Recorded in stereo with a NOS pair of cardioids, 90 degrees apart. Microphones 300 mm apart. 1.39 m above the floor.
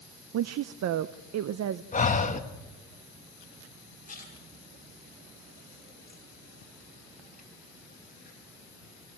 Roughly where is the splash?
Ahead left.